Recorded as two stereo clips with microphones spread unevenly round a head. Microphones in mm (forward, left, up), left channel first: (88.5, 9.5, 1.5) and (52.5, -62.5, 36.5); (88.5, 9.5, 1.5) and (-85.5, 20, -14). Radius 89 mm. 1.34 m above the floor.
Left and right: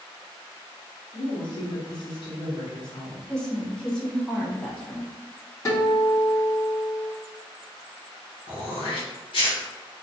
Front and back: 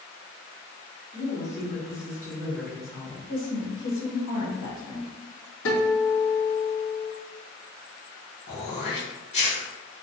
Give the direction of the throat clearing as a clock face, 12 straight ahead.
11 o'clock.